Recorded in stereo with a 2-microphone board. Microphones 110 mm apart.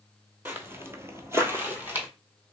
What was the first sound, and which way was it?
Footsteps, 20° right (ahead or behind).